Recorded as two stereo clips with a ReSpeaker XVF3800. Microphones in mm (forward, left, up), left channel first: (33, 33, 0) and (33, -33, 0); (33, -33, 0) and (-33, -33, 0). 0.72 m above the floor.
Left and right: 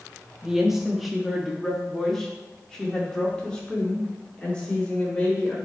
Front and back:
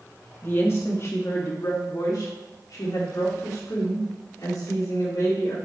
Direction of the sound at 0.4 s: 15° right.